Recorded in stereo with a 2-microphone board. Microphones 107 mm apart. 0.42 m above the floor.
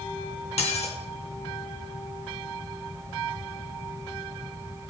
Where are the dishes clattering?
80° left, 2.5 m.